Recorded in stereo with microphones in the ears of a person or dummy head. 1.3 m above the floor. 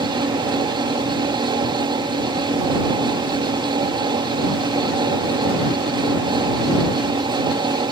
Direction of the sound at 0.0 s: 20° right (ahead or behind).